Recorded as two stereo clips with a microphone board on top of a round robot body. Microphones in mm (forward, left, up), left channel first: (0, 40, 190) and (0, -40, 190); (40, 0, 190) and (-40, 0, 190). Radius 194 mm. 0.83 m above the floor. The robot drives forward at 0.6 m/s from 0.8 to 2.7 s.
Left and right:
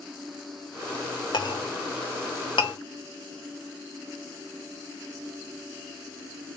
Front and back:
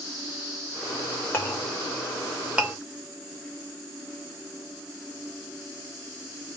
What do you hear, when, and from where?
1.3 s a clink: 65° left, 1.2 m; by 2.8 s 105° left, 1.1 m